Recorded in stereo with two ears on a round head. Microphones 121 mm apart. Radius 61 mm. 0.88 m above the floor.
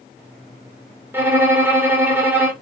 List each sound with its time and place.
1.1 s a violin: 15° right (ahead or behind), 1.0 m